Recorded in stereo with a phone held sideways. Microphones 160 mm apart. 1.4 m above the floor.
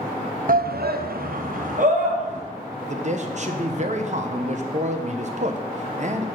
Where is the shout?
60° right (ahead or behind), 0.6 m; by 2.4 s 50° right (ahead or behind), 2 m.